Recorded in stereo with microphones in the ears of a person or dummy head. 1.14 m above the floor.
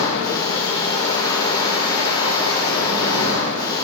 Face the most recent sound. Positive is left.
turn(degrees=15)  # may be behind; listen again after turning